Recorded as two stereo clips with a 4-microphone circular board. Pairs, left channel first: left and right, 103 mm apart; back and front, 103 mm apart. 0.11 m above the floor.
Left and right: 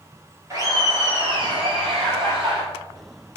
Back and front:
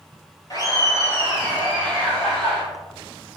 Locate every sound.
0.5 s laughter: 145° right, 1.8 m; by 2.6 s 60° right, 2.5 m